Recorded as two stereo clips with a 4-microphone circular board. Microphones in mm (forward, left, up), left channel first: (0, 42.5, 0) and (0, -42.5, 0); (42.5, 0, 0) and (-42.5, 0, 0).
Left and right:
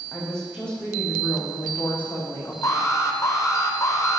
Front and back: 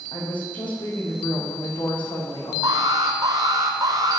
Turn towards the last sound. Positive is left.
turn(degrees=145)